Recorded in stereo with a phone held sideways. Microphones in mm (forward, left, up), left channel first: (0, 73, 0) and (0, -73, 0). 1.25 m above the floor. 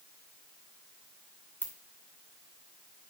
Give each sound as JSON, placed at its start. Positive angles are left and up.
{"t": 1.6, "sound": "a ringtone", "side_deg": 15, "distance_m": 2.5}